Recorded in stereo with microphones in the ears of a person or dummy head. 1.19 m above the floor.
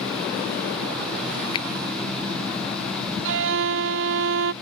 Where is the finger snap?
30° left (ahead or behind).